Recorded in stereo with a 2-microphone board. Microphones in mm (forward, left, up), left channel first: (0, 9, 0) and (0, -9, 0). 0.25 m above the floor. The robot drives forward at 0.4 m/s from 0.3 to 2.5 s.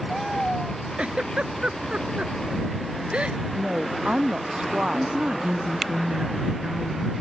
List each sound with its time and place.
1.0 s a giggle: 75° right (ahead or behind); by 3.4 s 70° right (ahead or behind)
3.5 s a woman speaking: 80° right
4.9 s a woman speaking: 65° right (ahead or behind)